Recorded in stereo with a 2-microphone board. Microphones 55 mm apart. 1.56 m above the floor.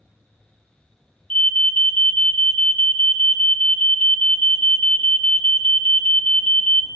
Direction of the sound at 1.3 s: 25° left (ahead or behind).